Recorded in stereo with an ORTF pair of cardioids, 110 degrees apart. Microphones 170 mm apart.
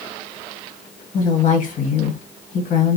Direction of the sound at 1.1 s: 55° left.